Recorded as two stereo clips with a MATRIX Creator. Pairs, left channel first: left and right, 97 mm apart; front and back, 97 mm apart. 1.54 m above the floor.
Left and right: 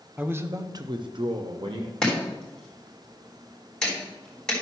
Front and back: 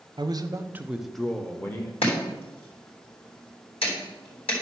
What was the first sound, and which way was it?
A man speaking, 160° right.